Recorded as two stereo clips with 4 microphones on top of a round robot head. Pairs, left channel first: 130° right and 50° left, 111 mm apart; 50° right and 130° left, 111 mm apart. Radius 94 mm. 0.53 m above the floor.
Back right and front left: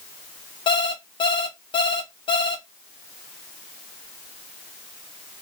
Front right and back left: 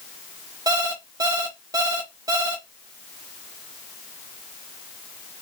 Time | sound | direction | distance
0.7 | an alarm clock | 175° right | 1.4 m